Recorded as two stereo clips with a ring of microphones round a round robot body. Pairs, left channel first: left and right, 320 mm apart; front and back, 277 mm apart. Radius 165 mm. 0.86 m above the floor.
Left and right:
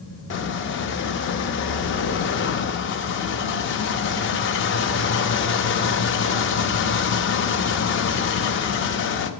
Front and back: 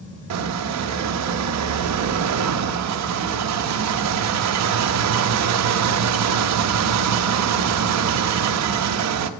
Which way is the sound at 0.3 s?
145° left.